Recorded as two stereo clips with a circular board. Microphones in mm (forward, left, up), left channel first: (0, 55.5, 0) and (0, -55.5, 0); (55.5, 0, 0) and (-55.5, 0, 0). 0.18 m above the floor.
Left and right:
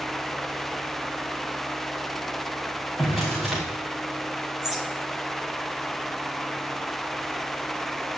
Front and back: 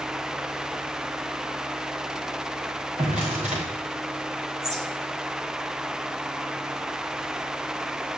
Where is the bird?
Straight behind, 3.5 m.